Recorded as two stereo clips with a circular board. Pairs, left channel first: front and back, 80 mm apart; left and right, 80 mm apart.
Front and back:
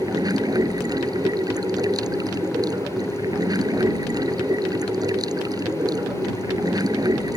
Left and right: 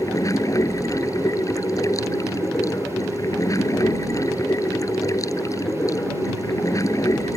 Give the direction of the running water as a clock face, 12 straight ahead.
7 o'clock.